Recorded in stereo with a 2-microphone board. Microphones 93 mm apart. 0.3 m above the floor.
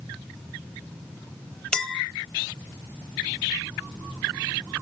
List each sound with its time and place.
1.7 s a clink: 10° left (ahead or behind), 0.7 m